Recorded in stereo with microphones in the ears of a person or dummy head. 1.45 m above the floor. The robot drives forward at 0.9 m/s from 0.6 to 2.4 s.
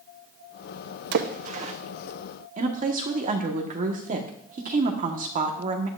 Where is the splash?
65° right (ahead or behind), 0.7 m; by 1.7 s 35° right (ahead or behind), 1.1 m.